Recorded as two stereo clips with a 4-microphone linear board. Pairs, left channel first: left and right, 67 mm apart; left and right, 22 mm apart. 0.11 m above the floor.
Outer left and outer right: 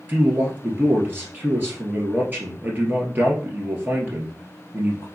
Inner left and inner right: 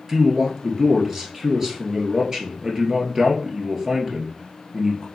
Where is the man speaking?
30° right (ahead or behind), 1.7 m.